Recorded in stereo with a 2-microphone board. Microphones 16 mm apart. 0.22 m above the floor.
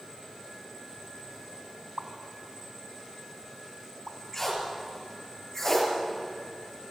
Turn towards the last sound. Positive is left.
turn(degrees=15)  # may be behind; listen again after turning